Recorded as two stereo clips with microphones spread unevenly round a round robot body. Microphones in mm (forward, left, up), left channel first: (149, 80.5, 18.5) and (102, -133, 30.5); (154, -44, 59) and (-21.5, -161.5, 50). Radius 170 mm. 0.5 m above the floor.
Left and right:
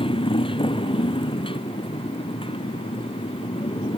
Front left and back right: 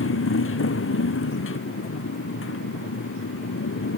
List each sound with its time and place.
0.0 s a motorcycle: 10° left